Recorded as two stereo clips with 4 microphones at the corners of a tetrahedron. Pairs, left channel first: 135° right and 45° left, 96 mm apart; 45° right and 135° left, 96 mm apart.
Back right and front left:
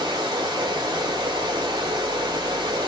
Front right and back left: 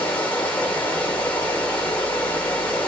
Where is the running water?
20° left, 0.9 m.